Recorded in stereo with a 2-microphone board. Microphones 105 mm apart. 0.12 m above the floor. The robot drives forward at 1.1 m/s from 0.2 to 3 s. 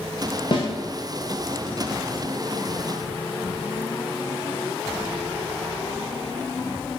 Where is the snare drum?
50° left (ahead or behind), 5 m.